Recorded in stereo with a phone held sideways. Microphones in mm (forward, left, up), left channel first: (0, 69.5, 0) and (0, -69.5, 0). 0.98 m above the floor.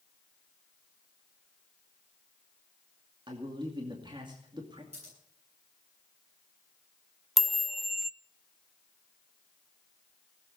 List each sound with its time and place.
3.3 s a man speaking: 35° right (ahead or behind), 2 m
4.9 s scissors: 50° right (ahead or behind), 9.5 m
7.4 s a chime: centre (ahead or behind), 0.6 m